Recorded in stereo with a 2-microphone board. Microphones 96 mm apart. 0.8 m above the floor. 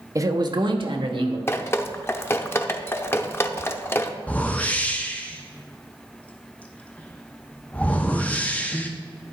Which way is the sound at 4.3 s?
15° left (ahead or behind).